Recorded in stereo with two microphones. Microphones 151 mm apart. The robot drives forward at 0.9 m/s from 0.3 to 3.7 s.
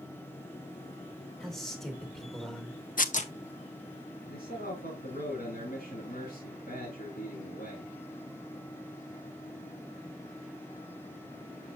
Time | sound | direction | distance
1.4 | a man speaking | centre (ahead or behind) | 2.5 m
3.0 | tearing paper | 65° left (ahead or behind) | 0.6 m
4.3 | a man speaking | 80° left | 4 m